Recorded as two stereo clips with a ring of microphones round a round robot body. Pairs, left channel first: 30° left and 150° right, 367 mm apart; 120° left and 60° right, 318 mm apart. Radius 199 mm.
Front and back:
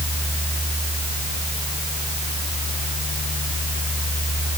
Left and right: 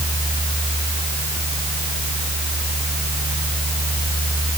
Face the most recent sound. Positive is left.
No sound to turn to.